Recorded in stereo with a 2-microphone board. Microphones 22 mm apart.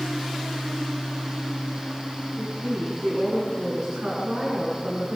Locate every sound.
2.4 s a woman speaking: 60° right (ahead or behind), 8.5 m